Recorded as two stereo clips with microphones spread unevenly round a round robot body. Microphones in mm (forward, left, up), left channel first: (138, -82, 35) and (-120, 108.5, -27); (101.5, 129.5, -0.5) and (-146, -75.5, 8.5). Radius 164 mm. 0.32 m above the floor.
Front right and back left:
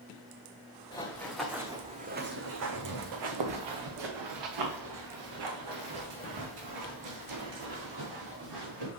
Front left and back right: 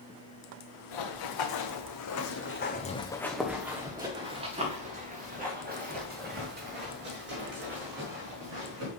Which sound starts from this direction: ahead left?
Running footsteps, at 0.9 s.